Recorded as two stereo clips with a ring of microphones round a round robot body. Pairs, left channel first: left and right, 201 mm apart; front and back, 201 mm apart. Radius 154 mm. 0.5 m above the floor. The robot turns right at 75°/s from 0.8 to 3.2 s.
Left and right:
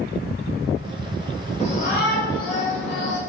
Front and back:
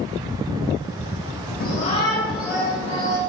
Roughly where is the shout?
Ahead left.